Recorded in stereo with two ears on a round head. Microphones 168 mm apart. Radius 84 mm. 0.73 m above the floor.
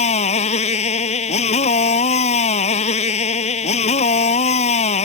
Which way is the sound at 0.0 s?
35° left (ahead or behind).